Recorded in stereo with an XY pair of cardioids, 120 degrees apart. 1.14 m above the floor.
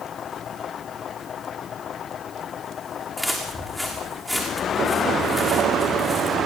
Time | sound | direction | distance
3.2 | footsteps | 10° left | 6.5 m